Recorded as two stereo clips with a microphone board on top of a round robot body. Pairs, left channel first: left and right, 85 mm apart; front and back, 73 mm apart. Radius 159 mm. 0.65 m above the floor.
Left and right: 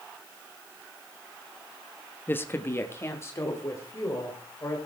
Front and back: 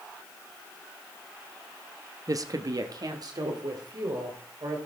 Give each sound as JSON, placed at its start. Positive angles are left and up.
{"t": 2.3, "sound": "a woman speaking", "azimuth_deg": 150, "distance_m": 0.9}